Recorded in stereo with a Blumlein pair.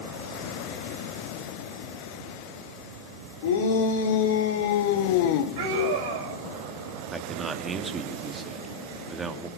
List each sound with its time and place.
3.4 s a shout: 55° left, 3.5 m; by 5.5 s 45° left, 1.6 m
5.6 s a scream: 55° right, 6 m
7.1 s a man speaking: 15° right, 2.5 m